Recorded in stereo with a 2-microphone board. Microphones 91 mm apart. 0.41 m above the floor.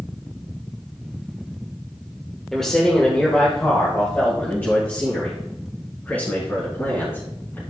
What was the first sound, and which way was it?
A man speaking, 5° left (ahead or behind).